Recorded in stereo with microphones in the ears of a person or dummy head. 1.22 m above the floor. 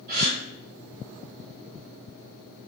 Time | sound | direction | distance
0.1 | a gasp | 45° right (ahead or behind) | 1.4 m